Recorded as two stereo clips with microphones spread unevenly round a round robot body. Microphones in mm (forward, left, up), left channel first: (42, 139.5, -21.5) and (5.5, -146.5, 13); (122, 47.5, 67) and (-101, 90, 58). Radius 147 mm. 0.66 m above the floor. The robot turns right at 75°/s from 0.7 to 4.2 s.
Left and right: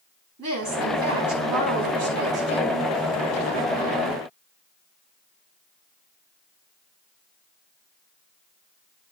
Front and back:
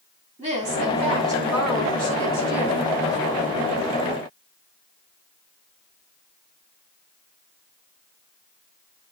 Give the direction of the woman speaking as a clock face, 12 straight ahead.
5 o'clock.